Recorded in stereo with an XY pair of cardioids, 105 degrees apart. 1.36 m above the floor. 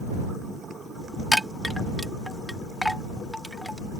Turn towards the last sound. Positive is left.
turn(degrees=5)